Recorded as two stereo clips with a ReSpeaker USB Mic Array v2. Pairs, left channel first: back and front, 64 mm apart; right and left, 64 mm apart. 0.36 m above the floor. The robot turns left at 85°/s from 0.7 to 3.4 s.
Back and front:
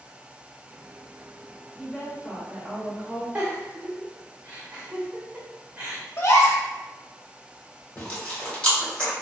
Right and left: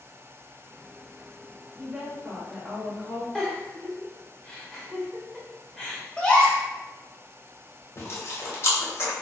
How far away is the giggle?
About 1.0 m.